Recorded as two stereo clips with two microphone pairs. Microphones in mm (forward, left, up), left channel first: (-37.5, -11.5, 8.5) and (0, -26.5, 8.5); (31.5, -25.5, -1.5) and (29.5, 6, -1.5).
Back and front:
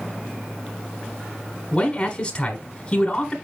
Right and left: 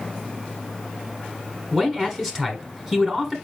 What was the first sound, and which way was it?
A man speaking, 150° left.